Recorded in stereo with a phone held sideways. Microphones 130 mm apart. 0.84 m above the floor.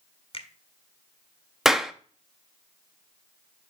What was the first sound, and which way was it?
A finger snap, 45° left (ahead or behind).